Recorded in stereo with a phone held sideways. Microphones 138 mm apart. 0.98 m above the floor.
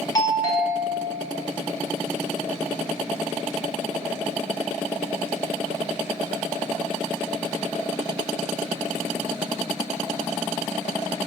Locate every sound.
0.1 s a doorbell: 25° left (ahead or behind), 1.0 m